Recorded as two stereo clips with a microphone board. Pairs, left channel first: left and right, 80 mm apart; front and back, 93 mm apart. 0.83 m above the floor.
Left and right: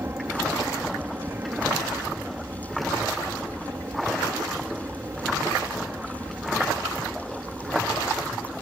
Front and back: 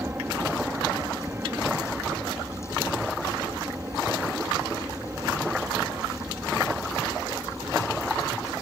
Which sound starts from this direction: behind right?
An aircraft, at 0.0 s.